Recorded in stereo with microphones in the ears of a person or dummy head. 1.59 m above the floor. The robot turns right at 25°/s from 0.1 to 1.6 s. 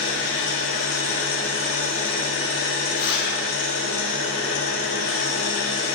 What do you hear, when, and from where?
0.0 s an engine running: 65° left, 0.8 m; by 6.0 s 105° left, 0.8 m
2.9 s a zipper: 60° left (ahead or behind), 0.8 m